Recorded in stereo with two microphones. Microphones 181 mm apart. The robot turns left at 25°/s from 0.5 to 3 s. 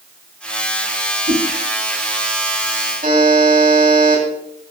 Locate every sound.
1.3 s a whoosh: 60° right (ahead or behind), 4 m; by 1.4 s 65° right (ahead or behind), 4 m
3.0 s a buzzer: 50° right (ahead or behind), 4 m